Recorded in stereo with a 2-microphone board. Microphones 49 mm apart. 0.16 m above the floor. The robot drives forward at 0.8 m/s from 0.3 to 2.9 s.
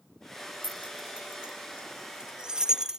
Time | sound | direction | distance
0.6 | keys jangling | 30° right (ahead or behind) | ?